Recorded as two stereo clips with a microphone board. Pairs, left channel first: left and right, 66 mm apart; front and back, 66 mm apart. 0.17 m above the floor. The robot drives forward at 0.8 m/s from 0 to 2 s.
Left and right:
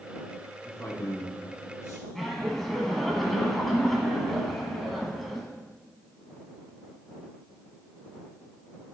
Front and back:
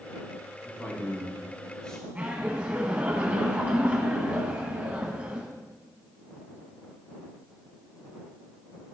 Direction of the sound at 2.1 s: 170° left.